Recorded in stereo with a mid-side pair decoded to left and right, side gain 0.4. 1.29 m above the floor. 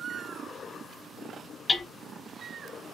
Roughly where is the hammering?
Ahead left.